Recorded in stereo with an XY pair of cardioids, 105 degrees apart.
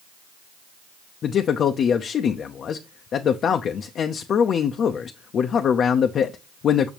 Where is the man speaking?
55° left, 0.6 m.